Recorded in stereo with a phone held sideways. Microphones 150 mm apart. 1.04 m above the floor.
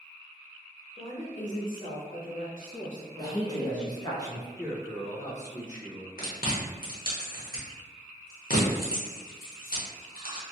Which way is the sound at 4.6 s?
55° left (ahead or behind).